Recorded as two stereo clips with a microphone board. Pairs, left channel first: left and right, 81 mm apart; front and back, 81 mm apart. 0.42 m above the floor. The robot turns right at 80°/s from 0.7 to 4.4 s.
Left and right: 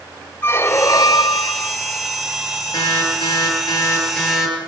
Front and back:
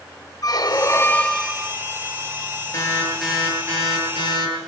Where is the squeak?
35° left, 0.6 m; by 1.7 s 115° left, 0.6 m.